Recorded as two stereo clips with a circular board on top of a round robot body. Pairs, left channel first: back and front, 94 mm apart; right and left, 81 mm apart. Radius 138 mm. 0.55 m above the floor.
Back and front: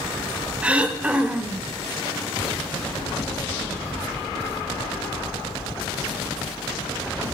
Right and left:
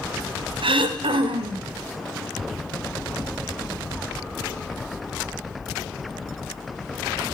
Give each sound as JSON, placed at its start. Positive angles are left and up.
{"t": 0.6, "sound": "throat clearing", "azimuth_deg": 80, "distance_m": 1.0}